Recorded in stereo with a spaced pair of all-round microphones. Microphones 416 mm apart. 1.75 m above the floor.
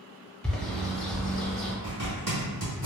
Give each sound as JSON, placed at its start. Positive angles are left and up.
{"t": 0.4, "sound": "a bird", "side_deg": 0, "distance_m": 0.6}
{"t": 1.8, "sound": "a zipper", "side_deg": -40, "distance_m": 1.9}